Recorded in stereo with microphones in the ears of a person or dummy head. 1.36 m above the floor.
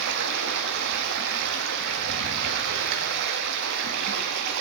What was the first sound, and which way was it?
Running water, 60° right (ahead or behind).